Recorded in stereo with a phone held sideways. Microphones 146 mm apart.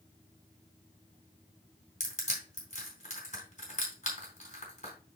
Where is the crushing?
50° left (ahead or behind), 3.5 m.